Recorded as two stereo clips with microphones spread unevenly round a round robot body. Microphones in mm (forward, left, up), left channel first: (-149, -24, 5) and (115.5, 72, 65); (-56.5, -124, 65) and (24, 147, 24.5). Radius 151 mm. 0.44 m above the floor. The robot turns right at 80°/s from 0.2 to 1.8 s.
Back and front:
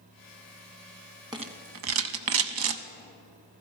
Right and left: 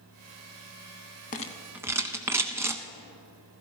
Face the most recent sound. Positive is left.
turn(degrees=-10)